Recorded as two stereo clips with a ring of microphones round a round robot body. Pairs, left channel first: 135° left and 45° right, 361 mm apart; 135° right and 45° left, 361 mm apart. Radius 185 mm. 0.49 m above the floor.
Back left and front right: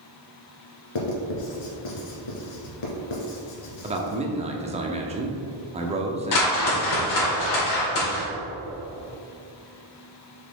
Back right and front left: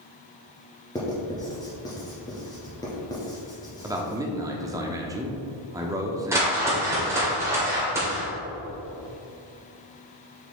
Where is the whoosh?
125° left, 2 m.